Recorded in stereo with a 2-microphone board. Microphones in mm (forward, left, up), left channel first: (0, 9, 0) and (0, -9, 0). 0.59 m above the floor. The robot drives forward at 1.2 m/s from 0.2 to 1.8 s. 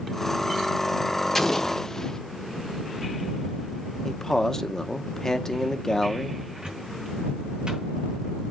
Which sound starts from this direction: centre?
An explosion, at 1.4 s.